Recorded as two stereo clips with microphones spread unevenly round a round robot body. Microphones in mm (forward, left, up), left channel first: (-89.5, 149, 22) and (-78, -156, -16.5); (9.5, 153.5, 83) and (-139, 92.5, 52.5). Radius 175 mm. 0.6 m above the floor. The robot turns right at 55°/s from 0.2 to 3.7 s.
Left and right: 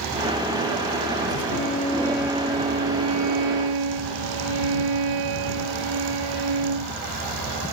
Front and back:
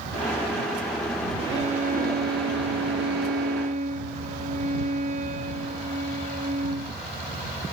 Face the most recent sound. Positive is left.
turn(degrees=-95)